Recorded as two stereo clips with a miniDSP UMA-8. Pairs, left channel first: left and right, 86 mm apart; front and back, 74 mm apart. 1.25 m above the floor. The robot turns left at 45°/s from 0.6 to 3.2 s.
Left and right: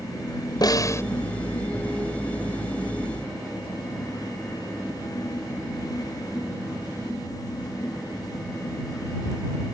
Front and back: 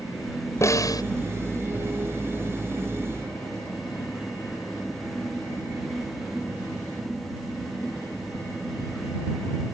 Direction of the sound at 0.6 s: 50° left.